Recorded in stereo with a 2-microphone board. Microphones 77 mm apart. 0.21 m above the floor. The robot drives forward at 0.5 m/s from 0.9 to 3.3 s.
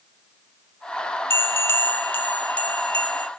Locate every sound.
1.3 s a bell: 30° left (ahead or behind), 0.6 m; by 3.3 s 15° left (ahead or behind), 1.2 m